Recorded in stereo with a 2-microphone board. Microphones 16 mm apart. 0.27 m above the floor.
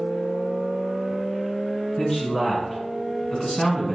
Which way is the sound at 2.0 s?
55° left (ahead or behind).